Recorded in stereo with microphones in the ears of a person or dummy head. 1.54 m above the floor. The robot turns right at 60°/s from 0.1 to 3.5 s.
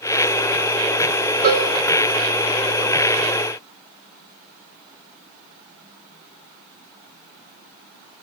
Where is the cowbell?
45° right (ahead or behind), 3 m; by 1.7 s 60° right (ahead or behind), 3 m.